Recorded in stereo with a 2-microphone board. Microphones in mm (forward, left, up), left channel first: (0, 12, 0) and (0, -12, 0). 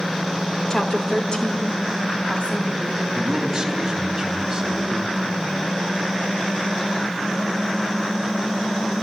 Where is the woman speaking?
35° left (ahead or behind), 2 m; by 3.0 s 60° left (ahead or behind), 4 m.